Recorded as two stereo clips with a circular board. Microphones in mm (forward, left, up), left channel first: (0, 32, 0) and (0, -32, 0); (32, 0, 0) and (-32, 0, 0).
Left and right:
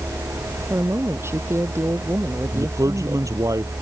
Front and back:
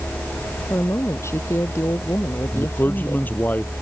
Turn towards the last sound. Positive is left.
turn(degrees=-60)